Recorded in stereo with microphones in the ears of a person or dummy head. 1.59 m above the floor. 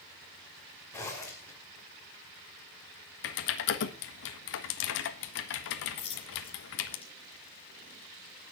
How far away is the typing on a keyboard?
About 1.5 m.